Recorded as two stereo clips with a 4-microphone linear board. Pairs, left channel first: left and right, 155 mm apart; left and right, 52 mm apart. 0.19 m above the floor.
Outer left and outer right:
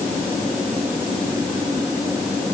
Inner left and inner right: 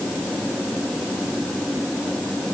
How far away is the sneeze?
I don't hear a sneeze.